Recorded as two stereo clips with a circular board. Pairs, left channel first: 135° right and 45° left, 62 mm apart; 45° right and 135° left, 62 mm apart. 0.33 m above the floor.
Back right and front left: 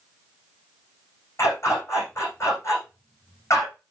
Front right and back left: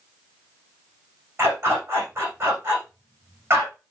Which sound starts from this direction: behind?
A dog barking, at 1.4 s.